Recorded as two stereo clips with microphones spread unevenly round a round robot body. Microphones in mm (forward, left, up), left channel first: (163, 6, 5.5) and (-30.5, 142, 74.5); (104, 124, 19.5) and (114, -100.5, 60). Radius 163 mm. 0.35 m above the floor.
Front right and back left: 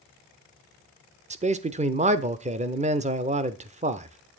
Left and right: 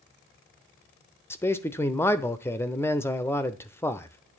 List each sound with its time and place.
1.3 s a man speaking: 85° left, 0.8 m